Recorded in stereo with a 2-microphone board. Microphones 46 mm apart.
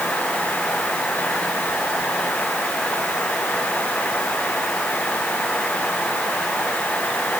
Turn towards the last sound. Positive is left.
No sound to turn to.